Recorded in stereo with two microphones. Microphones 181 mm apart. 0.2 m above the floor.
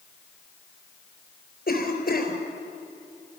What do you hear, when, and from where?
1.7 s a cough: 55° left (ahead or behind), 4 m